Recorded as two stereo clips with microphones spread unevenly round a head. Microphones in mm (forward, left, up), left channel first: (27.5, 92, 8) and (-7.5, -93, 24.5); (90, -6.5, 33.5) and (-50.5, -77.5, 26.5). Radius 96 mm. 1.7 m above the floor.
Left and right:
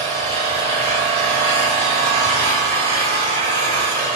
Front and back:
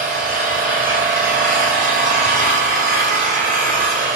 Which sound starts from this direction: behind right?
An engine running, at 0.0 s.